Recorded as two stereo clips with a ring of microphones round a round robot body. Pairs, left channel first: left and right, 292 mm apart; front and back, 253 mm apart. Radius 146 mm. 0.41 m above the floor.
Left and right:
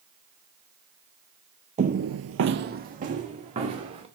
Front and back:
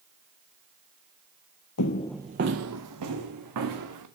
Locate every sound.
1.8 s footsteps: 25° right, 0.6 m; by 4.0 s 160° right, 2.5 m